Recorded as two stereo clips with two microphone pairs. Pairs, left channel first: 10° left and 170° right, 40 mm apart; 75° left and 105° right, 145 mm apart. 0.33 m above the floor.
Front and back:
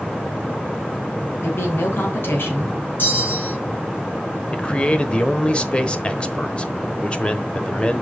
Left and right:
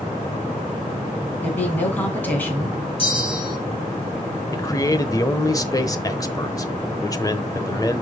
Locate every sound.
1.4 s a woman speaking: straight ahead, 3 m
3.0 s a bell: 30° left, 3 m
4.5 s a man speaking: 35° left, 1.0 m